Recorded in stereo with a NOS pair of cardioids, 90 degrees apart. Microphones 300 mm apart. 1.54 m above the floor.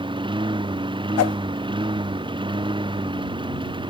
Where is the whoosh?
55° left.